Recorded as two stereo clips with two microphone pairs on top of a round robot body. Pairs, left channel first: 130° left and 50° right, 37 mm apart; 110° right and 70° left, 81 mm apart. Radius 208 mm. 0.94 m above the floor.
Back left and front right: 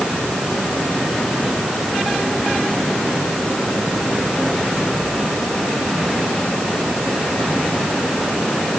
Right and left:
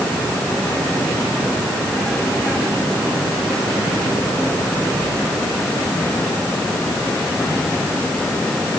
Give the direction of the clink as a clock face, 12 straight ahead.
I don't hear a clink.